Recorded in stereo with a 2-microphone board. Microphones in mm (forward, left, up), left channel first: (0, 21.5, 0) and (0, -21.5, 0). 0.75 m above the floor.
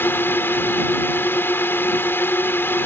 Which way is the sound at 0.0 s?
65° left (ahead or behind).